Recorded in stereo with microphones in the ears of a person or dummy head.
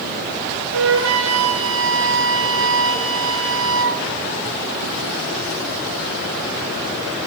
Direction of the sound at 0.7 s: 70° right (ahead or behind).